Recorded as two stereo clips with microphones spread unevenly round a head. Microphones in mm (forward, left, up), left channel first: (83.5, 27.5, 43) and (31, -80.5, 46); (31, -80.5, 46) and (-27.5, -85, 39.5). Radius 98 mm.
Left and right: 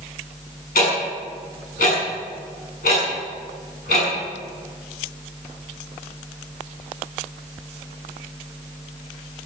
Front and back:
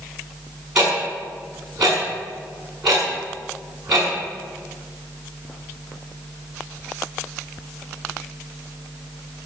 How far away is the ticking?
About 6.5 m.